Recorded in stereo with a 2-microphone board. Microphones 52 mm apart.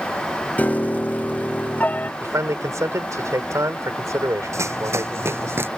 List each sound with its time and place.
0.6 s a piano: 30° left (ahead or behind)
2.2 s a man speaking: 85° right
4.5 s running footsteps: 70° right (ahead or behind); by 5.7 s 50° right (ahead or behind)